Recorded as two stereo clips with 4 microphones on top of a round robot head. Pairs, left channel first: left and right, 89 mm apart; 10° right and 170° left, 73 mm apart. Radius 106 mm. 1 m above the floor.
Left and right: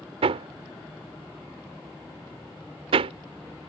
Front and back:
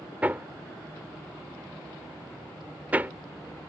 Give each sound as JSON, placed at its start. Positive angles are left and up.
{"t": 0.2, "sound": "hammering", "azimuth_deg": -115}